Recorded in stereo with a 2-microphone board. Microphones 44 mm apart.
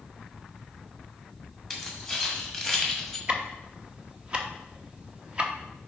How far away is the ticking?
About 0.8 m.